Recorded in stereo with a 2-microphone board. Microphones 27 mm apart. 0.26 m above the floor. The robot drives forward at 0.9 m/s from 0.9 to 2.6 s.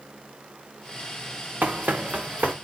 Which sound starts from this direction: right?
Running footsteps, at 1.6 s.